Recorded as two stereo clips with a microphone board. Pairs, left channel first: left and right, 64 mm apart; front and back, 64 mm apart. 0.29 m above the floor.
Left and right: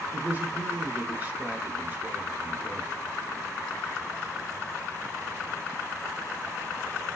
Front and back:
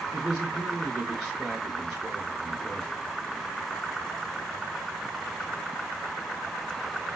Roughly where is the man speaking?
Right.